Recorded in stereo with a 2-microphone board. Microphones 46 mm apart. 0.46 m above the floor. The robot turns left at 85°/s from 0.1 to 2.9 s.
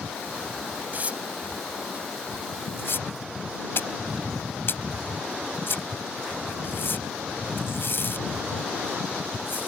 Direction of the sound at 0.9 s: 45° right (ahead or behind).